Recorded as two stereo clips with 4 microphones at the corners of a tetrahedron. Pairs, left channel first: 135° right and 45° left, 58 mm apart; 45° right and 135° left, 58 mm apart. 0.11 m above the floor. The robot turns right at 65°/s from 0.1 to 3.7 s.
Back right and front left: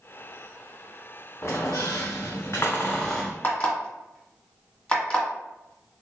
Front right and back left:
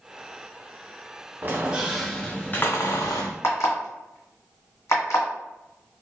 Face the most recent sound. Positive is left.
turn(degrees=-65)